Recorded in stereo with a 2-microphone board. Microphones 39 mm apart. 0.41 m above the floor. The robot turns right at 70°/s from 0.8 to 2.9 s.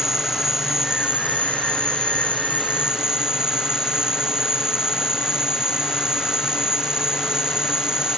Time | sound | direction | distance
0.0 | an insect | 165° right | ?